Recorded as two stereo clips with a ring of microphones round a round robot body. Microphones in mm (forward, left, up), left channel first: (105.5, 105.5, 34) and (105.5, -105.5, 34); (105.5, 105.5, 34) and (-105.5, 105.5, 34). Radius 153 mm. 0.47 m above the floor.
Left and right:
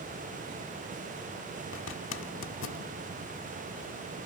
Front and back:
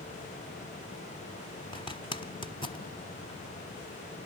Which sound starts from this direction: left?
A zipper, at 1.7 s.